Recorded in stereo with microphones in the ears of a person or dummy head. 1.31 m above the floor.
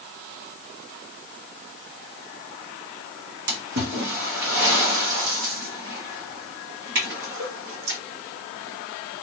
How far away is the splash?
About 1.1 m.